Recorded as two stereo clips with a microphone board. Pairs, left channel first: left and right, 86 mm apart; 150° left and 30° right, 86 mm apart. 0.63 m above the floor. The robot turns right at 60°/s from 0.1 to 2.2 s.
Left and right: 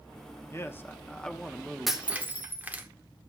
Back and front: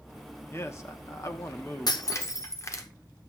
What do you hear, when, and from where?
0.5 s a man speaking: 120° left, 0.9 m; by 2.0 s 150° right, 0.9 m
1.9 s breaking glass: straight behind, 1.0 m; by 2.9 s 160° right, 1.0 m